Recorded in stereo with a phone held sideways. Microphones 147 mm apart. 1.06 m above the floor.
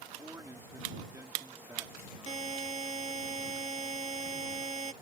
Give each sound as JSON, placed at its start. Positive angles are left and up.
{"t": 0.2, "sound": "a man speaking", "side_deg": -20}
{"t": 2.3, "sound": "a buzzer", "side_deg": -50}